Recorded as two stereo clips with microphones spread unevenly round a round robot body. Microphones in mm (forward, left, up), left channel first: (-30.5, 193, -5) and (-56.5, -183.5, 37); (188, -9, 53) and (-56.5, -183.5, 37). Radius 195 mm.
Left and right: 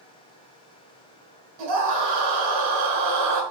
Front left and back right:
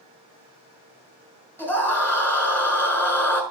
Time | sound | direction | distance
1.6 | a scream | 50° right | 6 m